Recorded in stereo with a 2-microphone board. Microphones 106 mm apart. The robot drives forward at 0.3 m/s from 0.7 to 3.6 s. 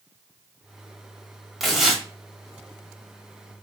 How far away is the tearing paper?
About 1.0 m.